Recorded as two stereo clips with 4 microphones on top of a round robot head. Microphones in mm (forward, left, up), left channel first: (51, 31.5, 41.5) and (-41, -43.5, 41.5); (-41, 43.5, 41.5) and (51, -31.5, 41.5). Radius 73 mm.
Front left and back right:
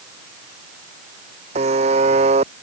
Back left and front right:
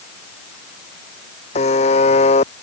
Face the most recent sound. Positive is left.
turn(degrees=180)